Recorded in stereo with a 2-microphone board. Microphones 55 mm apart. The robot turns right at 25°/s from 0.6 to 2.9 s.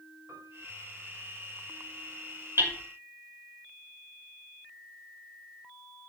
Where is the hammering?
50° right (ahead or behind), 2.5 m; by 2.7 s 55° right (ahead or behind), 2.5 m.